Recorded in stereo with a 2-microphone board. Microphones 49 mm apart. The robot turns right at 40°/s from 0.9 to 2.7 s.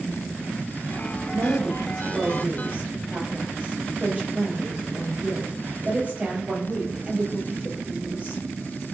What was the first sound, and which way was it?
A woman speaking, 90° right.